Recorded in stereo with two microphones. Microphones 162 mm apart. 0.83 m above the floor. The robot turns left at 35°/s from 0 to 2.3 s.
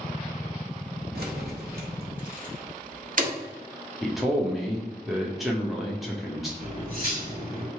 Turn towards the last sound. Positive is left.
turn(degrees=-65)  # may be behind; listen again after turning